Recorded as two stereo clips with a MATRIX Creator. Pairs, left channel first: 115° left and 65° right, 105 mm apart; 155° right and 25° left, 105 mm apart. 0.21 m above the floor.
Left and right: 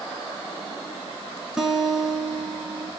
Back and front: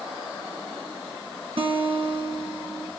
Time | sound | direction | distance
1.6 | a guitar | 15° left | 1.2 m